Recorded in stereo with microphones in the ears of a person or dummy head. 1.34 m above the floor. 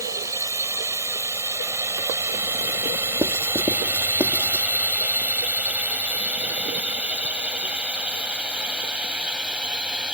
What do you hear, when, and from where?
0.0 s a drone: 20° right (ahead or behind); by 10.2 s 5° right (ahead or behind)
3.2 s writing: 15° right (ahead or behind)